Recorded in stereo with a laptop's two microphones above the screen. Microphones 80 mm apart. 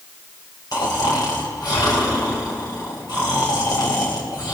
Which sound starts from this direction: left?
Snoring, at 0.7 s.